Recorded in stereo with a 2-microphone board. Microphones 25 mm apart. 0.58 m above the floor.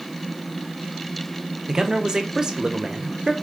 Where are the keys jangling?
I don't hear keys jangling.